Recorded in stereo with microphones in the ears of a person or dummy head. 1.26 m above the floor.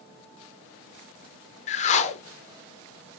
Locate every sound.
1.7 s a whoosh: 35° left (ahead or behind), 0.6 m